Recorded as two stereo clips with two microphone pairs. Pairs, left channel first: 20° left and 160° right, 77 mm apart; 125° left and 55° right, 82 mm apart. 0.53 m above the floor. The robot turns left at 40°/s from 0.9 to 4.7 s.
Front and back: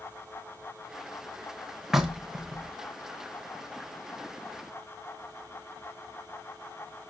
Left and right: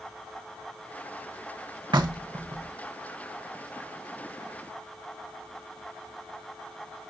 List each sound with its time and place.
1.9 s knocking: 70° right, 1.3 m; by 2.7 s 105° right, 1.3 m